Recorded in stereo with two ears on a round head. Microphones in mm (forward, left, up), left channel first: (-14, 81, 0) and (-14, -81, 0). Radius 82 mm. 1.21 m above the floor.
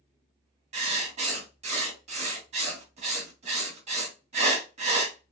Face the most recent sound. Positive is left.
turn(degrees=-40)  # may be behind; listen again after turning